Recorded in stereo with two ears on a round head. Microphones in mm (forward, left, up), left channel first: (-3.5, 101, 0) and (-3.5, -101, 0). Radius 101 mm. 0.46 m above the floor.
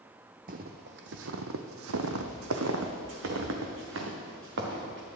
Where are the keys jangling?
I don't hear keys jangling.